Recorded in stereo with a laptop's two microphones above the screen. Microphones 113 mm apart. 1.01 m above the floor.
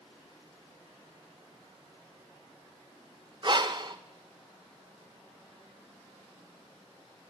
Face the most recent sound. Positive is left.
turn(degrees=-40)  # may be behind; listen again after turning